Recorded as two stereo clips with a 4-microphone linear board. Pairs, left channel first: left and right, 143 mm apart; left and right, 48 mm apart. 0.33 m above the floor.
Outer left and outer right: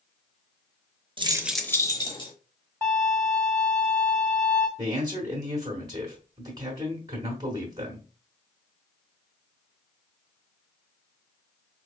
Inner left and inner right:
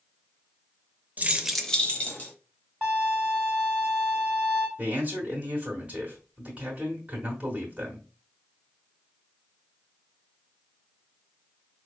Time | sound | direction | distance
1.2 | keys jangling | 35° right (ahead or behind) | 0.6 m
2.8 | a violin | 15° left (ahead or behind) | 1.9 m
4.8 | a man speaking | 25° right (ahead or behind) | 1.4 m